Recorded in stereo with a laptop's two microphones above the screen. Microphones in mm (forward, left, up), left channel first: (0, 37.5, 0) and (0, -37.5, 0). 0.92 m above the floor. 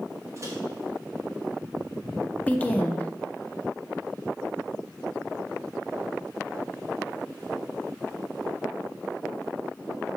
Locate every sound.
0.4 s a microwave: 40° right (ahead or behind), 1.3 m
2.5 s a woman speaking: 20° left (ahead or behind), 0.5 m